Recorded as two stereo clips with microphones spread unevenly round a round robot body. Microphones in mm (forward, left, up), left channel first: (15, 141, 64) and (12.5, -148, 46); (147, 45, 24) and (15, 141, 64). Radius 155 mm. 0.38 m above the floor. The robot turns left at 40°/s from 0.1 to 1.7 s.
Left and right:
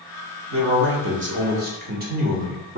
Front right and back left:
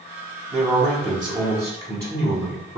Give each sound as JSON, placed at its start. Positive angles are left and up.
{"t": 0.5, "sound": "a man speaking", "azimuth_deg": -85, "distance_m": 1.2}